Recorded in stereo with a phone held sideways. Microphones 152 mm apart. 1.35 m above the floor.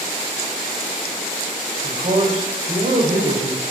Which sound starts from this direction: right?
A man speaking, at 1.8 s.